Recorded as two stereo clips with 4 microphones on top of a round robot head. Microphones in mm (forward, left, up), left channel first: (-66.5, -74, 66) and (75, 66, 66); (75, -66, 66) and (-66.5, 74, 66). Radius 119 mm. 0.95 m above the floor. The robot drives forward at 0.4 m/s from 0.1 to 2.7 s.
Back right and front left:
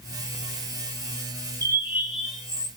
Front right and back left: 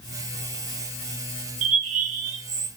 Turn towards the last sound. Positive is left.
turn(degrees=140)